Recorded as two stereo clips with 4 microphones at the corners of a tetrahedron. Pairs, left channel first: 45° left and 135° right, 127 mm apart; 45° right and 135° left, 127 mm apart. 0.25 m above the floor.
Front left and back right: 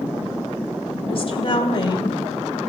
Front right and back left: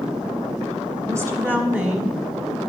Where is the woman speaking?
75° left, 2 m; by 2.2 s 40° left, 1.4 m.